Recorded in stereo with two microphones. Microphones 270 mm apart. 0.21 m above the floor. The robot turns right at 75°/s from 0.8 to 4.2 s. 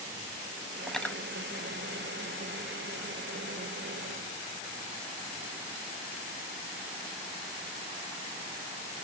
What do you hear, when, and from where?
0.9 s cutlery clinking: centre (ahead or behind), 0.6 m; by 1.2 s 10° left (ahead or behind), 0.6 m